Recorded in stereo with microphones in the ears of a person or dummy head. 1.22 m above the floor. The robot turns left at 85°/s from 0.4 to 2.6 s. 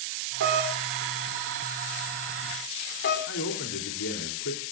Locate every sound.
0.4 s a doorbell: 65° right (ahead or behind), 5 m; by 3.2 s 55° left (ahead or behind), 5 m
3.3 s a man speaking: 70° left (ahead or behind), 3.5 m